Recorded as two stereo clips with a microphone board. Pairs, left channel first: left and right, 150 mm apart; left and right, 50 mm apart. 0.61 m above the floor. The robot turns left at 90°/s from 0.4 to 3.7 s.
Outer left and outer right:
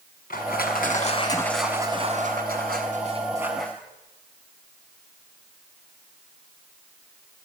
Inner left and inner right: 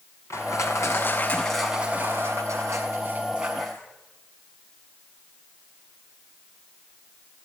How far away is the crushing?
About 6 m.